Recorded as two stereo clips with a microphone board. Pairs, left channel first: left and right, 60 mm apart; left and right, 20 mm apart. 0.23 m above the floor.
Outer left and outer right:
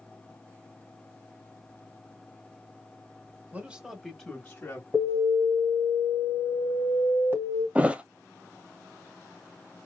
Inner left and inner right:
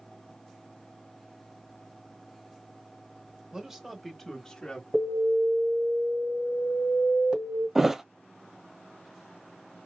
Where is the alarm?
40° right (ahead or behind), 2 m.